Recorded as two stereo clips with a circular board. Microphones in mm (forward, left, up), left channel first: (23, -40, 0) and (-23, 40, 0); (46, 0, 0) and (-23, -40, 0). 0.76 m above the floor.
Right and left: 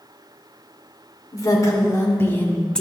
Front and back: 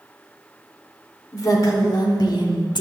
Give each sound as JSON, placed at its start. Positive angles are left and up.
{"t": 1.3, "sound": "a woman speaking", "azimuth_deg": -10, "distance_m": 2.0}